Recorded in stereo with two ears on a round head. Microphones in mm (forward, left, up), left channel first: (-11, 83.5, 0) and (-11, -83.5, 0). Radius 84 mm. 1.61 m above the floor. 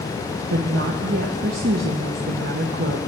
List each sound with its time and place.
0.5 s a woman speaking: 60° right (ahead or behind), 0.9 m